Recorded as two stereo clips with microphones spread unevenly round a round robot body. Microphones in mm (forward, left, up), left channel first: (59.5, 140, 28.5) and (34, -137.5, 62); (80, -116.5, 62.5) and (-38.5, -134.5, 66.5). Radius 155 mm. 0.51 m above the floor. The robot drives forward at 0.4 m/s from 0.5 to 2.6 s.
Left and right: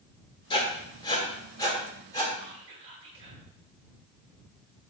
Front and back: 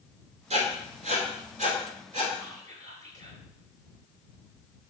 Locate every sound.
0.5 s writing: 155° left, 1.9 m; by 2.3 s 160° left, 2.5 m
2.4 s whispering: 170° right, 2.5 m